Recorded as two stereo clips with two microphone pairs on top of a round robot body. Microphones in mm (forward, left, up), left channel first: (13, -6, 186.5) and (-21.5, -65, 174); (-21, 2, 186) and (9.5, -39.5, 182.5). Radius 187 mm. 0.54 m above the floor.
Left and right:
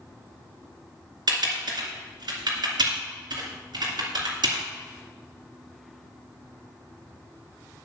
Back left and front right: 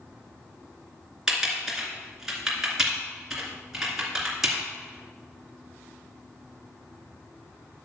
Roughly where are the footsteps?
I don't hear footsteps.